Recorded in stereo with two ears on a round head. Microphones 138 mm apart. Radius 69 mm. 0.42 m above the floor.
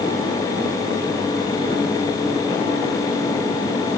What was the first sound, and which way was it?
Only background noise.